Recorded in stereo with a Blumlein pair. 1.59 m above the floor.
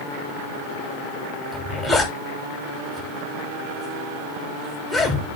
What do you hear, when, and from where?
1.5 s a zipper: 20° left, 3 m